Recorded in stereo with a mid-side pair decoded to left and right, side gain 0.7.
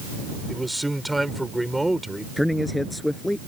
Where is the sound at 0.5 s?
5° right.